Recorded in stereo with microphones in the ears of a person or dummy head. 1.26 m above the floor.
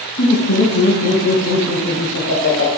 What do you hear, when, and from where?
0.2 s laughter: 50° left (ahead or behind), 1.4 m; by 2.7 s 80° left, 2.5 m